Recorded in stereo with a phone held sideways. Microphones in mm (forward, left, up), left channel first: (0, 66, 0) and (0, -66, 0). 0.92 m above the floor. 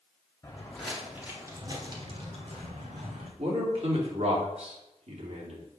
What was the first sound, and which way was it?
Footsteps, 20° left (ahead or behind).